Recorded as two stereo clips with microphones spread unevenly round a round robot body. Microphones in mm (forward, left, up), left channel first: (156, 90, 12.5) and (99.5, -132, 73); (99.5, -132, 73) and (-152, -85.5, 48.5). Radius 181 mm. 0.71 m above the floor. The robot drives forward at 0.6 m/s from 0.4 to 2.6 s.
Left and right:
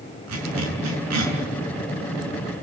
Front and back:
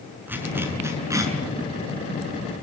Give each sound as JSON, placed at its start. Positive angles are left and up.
{"t": 0.3, "sound": "a zipper", "azimuth_deg": -110, "distance_m": 6.0}